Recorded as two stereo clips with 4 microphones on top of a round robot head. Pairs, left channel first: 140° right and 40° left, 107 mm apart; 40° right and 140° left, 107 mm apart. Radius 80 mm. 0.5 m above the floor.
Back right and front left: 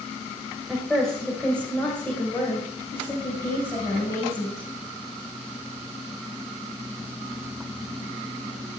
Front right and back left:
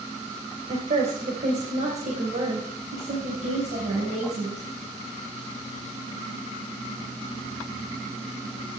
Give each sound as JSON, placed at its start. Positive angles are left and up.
{"t": 0.7, "sound": "a woman speaking", "azimuth_deg": 130, "distance_m": 3.0}